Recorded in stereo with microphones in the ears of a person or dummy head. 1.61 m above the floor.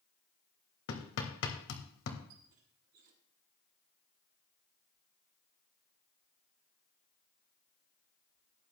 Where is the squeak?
50° right (ahead or behind), 1.4 m.